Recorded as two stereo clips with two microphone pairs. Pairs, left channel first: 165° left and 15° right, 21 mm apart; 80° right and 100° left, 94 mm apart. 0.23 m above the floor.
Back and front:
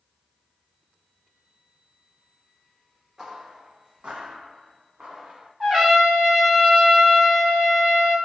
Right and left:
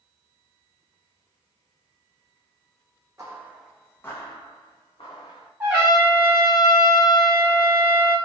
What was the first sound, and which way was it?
Footsteps, 45° left.